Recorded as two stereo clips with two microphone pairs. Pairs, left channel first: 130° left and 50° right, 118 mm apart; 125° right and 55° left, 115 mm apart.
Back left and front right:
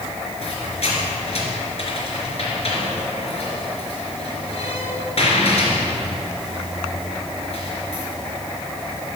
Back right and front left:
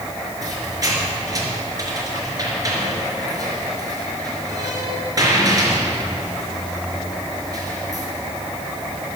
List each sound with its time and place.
0.4 s a squeak: 110° left, 3.5 m